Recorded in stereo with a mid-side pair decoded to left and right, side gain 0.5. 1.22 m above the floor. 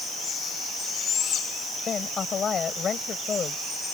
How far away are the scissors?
No scissors in this recording.